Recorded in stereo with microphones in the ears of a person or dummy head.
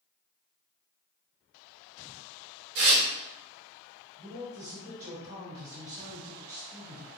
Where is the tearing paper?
60° right (ahead or behind), 0.9 m.